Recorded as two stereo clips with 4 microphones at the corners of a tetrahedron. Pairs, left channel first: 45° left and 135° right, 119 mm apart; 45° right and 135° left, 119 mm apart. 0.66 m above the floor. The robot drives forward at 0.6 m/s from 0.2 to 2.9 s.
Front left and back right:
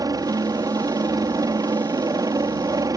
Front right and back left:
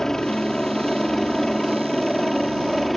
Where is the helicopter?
130° right; by 3.0 s 135° right.